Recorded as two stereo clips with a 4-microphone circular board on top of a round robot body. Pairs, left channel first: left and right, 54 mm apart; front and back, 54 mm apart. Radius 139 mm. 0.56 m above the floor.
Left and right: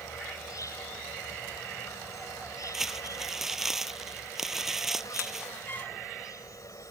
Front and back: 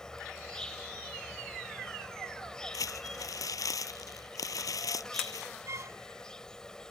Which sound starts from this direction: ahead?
Crumpling, at 2.7 s.